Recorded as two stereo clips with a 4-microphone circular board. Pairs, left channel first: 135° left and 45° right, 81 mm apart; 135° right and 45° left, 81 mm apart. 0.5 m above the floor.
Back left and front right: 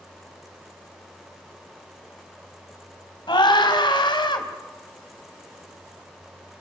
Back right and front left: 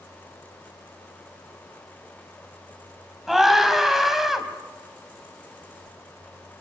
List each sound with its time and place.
3.3 s a scream: 130° left, 4 m